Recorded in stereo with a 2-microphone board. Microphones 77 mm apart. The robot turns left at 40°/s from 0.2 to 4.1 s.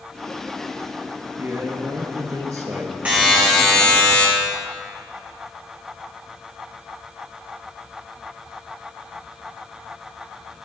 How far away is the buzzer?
About 5 m.